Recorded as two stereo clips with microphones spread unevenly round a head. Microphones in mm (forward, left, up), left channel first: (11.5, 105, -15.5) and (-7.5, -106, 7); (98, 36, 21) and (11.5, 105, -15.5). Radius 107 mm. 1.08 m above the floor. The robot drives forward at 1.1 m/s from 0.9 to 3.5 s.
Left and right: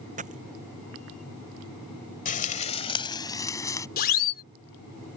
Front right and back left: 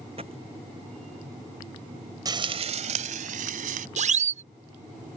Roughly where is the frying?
Left.